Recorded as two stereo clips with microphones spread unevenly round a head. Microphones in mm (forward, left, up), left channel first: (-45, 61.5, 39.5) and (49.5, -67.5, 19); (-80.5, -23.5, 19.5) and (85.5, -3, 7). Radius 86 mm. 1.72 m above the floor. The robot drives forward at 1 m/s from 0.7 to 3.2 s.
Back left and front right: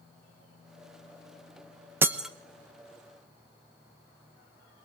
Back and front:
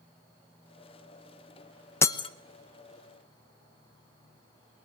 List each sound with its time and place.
2.0 s breaking glass: 130° right, 0.9 m; by 2.3 s 155° right, 1.0 m